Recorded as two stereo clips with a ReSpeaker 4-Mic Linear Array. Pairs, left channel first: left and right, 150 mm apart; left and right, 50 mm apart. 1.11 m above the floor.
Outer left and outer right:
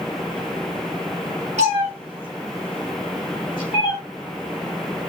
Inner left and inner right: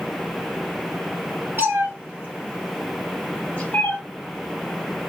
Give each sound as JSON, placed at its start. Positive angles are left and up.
{"t": 1.6, "sound": "a cat meowing", "side_deg": -55, "distance_m": 1.7}